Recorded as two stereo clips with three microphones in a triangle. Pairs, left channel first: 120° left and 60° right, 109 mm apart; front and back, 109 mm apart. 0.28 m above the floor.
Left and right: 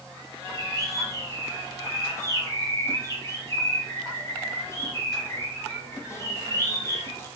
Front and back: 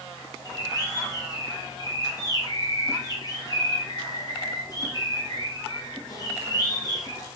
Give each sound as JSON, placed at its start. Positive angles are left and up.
{"t": 0.5, "sound": "a bird", "azimuth_deg": 55, "distance_m": 3.5}